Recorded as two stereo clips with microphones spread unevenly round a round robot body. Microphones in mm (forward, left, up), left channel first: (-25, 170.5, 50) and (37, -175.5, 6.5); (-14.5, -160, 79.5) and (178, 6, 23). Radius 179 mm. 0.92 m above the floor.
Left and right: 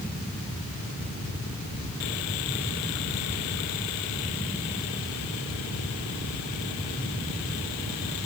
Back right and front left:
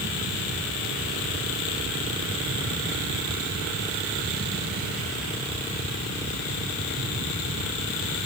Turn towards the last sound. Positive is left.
No sound to turn to.